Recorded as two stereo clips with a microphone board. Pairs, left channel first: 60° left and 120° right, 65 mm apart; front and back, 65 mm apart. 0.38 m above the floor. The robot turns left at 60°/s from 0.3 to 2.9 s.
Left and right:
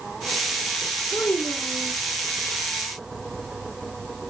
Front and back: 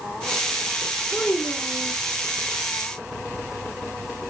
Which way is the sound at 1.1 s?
85° left.